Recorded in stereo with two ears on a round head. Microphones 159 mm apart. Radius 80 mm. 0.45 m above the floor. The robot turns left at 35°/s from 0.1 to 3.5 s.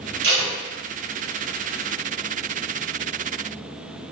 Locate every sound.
0.2 s tape being pulled: 60° right (ahead or behind), 1.8 m; by 0.5 s 65° right (ahead or behind), 1.8 m